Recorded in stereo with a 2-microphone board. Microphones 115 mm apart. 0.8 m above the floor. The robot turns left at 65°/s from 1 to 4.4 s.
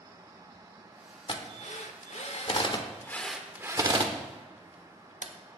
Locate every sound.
1.3 s a drill: 45° left (ahead or behind), 1.1 m; by 5.6 s 70° right (ahead or behind), 1.1 m